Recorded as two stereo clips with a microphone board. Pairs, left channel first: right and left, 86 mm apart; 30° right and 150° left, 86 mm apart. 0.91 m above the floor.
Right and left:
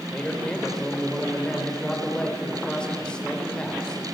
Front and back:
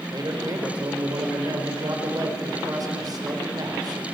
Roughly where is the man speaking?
Behind.